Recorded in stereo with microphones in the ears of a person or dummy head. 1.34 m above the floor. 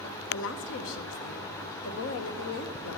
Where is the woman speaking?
70° left (ahead or behind), 1.3 m.